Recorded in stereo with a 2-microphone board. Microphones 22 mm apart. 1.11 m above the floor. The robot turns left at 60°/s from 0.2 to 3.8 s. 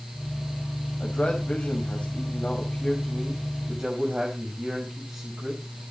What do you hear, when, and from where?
1.0 s a man speaking: 130° left, 5 m; by 5.8 s 40° right, 5 m